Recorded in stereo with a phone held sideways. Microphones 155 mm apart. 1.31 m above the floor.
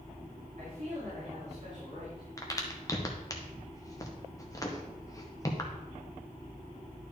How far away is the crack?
About 1.1 m.